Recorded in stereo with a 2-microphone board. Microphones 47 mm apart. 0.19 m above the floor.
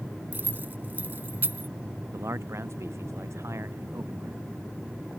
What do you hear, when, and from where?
0.3 s keys jangling: 45° right (ahead or behind)
2.1 s a man speaking: 75° right (ahead or behind)